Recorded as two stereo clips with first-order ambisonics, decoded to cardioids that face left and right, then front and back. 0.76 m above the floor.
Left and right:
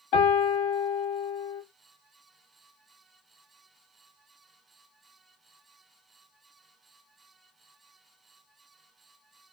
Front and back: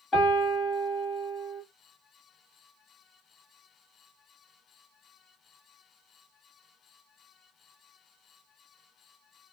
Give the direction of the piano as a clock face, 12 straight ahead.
10 o'clock.